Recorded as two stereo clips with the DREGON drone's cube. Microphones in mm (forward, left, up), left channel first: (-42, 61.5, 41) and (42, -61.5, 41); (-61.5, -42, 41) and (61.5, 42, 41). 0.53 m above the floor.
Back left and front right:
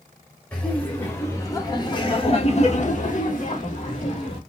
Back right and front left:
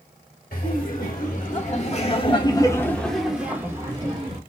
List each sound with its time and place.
0.5 s laughter: 155° right, 2.5 m; by 4.4 s 90° left, 2.0 m